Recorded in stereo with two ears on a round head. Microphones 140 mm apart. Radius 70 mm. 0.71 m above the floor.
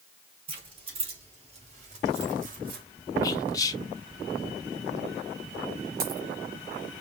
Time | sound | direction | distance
0.5 | keys jangling | 40° right (ahead or behind) | 4 m
3.2 | whispering | 25° left (ahead or behind) | 1.0 m
6.0 | a dropped coin | 65° right (ahead or behind) | 2.5 m